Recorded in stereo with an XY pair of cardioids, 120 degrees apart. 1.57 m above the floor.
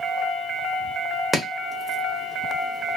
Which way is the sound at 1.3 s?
15° right.